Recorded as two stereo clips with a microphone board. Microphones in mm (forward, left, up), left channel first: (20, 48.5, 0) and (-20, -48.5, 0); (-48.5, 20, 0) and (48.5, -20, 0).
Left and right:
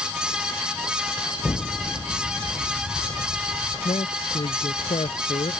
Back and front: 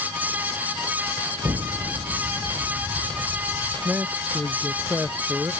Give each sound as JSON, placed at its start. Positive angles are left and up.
{"t": 1.4, "sound": "an explosion", "azimuth_deg": 15}
{"t": 3.9, "sound": "a man speaking", "azimuth_deg": 50}